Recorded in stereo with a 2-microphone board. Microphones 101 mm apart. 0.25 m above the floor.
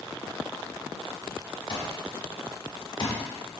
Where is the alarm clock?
55° left (ahead or behind), 1.0 m.